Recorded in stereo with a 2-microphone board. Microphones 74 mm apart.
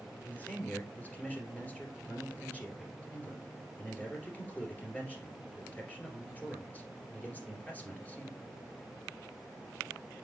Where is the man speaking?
20° left (ahead or behind), 2.5 m.